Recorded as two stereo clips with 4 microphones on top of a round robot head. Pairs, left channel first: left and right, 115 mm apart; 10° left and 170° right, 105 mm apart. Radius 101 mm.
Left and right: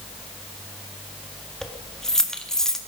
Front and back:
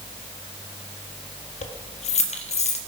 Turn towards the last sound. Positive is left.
turn(degrees=5)